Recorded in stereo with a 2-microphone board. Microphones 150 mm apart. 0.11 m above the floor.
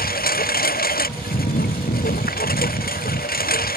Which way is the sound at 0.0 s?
85° left.